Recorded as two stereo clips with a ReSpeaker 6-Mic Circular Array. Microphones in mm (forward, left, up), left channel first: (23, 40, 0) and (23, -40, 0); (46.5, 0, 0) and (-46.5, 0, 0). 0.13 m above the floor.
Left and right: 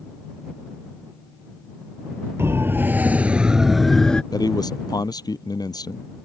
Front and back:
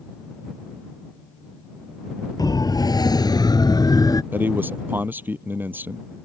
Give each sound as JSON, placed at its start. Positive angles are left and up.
{"t": 2.4, "sound": "a siren", "azimuth_deg": -35}
{"t": 4.3, "sound": "a man speaking", "azimuth_deg": 115}